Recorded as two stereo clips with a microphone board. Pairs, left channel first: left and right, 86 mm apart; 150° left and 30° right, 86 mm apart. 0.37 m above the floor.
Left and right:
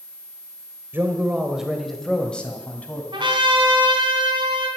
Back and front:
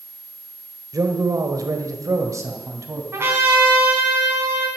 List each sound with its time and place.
0.9 s a man speaking: 35° right, 1.4 m; by 3.0 s 20° left, 2.5 m
3.1 s a trumpet: 90° right, 4.5 m